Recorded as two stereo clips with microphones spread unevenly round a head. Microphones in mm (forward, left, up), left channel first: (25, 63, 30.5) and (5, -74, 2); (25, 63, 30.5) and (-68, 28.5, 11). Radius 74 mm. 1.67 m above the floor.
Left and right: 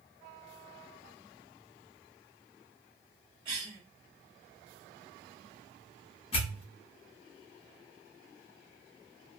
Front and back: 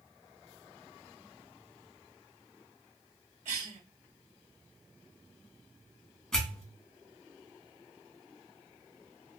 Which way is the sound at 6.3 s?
90° left.